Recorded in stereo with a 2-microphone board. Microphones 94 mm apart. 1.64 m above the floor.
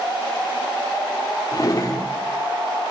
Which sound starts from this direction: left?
A drawer, at 1.5 s.